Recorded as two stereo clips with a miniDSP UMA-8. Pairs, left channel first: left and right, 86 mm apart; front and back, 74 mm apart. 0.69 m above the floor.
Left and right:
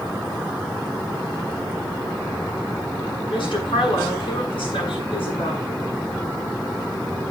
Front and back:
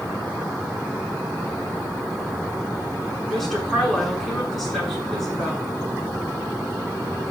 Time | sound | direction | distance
3.3 | a woman speaking | 85° left | 7 m